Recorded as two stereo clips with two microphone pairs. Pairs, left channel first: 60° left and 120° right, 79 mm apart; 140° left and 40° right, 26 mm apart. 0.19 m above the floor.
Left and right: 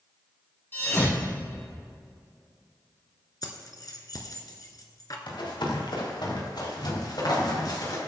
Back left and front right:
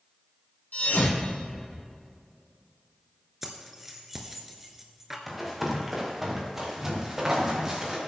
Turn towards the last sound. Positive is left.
turn(degrees=25)